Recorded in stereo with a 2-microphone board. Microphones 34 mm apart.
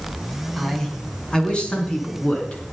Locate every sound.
0.6 s a man speaking: 15° left (ahead or behind), 2.5 m; by 2.6 s 35° left (ahead or behind), 4 m